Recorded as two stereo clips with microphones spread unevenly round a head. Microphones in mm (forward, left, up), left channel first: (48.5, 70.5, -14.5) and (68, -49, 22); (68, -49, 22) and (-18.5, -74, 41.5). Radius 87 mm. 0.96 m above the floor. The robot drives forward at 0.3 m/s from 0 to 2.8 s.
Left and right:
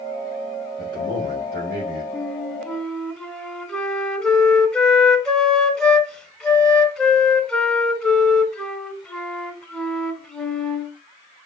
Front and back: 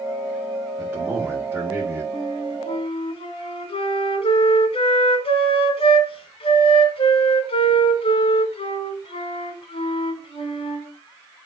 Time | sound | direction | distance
0.8 | a man speaking | 85° right | 2 m
2.1 | a flute | straight ahead | 1.3 m